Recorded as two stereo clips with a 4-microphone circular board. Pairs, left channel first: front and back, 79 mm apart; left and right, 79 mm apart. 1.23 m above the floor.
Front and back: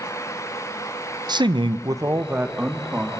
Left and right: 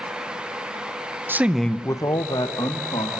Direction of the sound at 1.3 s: 155° right.